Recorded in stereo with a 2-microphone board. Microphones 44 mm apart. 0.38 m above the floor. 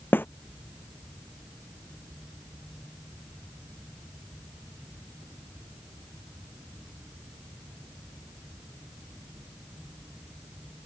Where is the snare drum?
50° left (ahead or behind).